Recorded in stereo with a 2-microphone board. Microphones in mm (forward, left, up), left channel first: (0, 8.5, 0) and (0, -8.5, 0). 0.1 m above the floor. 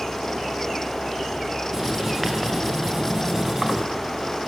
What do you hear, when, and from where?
1.7 s writing: 25° right (ahead or behind), 8.5 m